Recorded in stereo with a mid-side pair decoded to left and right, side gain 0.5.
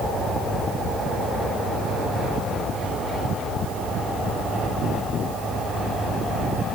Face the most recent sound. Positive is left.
No sound to turn to.